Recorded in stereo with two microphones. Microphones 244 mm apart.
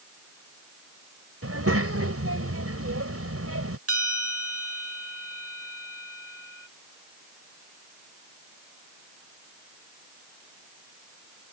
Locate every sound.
1.4 s a child speaking: 75° right (ahead or behind)
3.9 s a bell: 75° right (ahead or behind)